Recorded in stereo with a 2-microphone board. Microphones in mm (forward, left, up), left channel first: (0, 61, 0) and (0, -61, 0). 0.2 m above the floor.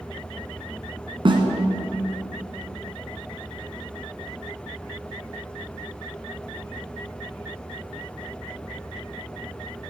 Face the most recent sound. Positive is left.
turn(degrees=-45)  # may be behind; listen again after turning